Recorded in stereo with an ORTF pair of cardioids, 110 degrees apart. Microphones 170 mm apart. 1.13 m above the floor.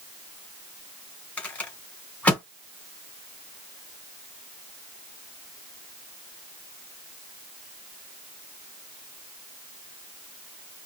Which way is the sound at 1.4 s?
10° left.